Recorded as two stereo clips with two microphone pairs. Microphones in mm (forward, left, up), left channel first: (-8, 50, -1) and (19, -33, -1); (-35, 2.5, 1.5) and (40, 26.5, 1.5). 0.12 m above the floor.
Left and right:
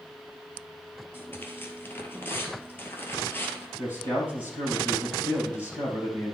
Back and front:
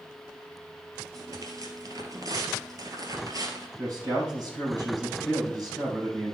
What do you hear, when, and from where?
1.1 s tearing paper: 45° left, 1.7 m
3.8 s a man speaking: 50° left, 4.5 m